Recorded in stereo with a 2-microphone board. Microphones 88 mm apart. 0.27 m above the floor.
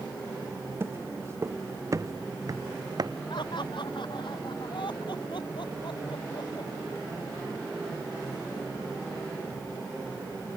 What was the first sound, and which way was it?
Footsteps, 30° right (ahead or behind).